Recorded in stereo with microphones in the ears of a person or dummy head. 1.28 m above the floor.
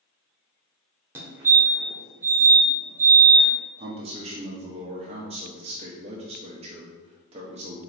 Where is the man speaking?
30° right (ahead or behind), 0.5 m.